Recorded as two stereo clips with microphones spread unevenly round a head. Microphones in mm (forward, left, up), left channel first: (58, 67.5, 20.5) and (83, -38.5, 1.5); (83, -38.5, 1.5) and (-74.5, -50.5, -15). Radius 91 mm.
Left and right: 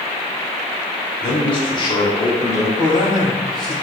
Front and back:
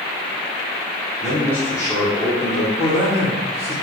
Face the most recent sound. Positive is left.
turn(degrees=55)